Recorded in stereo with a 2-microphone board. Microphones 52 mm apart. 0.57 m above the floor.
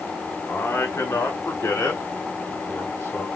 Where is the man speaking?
60° left (ahead or behind), 1.9 m; by 3.3 s 65° left (ahead or behind), 3.5 m.